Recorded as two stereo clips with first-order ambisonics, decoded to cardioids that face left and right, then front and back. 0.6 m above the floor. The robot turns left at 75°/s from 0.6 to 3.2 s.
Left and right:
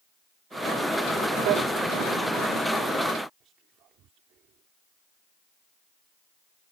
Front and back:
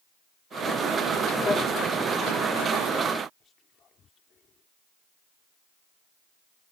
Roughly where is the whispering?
Ahead right.